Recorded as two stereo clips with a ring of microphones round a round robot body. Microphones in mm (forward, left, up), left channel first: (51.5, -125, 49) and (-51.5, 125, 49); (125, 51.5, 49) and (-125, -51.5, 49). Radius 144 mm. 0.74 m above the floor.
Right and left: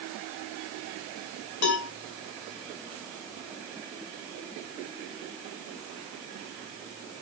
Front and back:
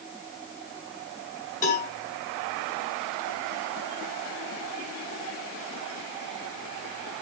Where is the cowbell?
40° right, 3 m.